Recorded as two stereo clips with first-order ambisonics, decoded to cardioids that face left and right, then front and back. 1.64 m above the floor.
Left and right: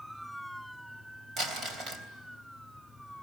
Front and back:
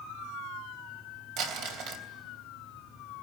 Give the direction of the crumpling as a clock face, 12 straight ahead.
5 o'clock.